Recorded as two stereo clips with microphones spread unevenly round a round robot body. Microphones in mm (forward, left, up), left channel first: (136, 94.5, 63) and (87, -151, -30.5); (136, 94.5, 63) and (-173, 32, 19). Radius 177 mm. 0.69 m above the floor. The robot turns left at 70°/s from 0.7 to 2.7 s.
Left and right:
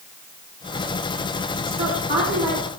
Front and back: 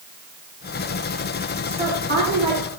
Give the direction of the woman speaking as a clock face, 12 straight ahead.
3 o'clock.